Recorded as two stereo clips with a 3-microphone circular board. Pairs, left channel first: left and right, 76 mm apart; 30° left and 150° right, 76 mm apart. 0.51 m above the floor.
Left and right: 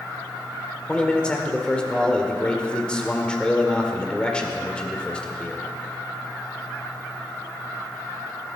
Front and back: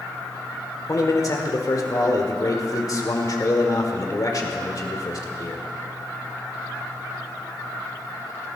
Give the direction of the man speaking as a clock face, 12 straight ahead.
11 o'clock.